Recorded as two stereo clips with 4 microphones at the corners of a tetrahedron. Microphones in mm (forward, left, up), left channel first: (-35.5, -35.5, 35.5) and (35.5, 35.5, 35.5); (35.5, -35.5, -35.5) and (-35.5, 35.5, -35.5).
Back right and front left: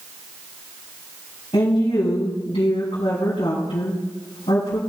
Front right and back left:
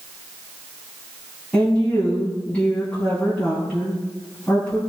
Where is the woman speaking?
120° right, 4.5 m.